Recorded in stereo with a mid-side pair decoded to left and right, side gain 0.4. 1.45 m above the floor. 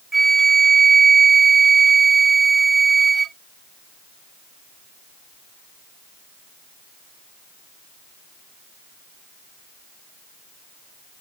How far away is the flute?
About 0.5 m.